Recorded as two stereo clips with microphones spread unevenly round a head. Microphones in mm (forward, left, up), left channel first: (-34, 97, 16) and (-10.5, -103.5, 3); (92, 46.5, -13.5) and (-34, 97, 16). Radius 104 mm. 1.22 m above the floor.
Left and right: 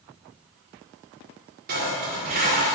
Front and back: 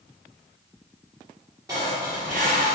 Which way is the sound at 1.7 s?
125° right.